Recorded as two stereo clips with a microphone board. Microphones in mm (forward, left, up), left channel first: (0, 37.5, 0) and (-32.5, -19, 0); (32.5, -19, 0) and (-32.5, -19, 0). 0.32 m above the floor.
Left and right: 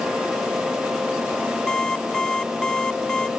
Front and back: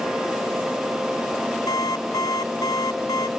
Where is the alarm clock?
20° right.